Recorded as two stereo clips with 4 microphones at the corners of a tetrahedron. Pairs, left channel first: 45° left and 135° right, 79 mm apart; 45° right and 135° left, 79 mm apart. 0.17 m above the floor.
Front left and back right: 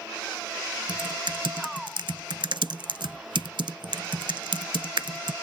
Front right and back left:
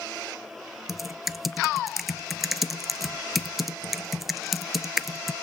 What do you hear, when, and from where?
0.9 s typing on a keyboard: 135° right, 0.5 m